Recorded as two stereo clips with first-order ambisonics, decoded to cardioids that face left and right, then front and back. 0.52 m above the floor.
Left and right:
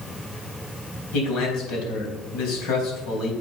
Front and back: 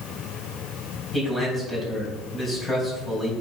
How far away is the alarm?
No alarm in this recording.